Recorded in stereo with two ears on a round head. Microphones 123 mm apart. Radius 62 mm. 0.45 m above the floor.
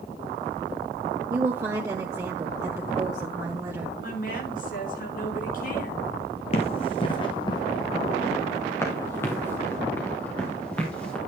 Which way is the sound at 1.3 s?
20° right (ahead or behind).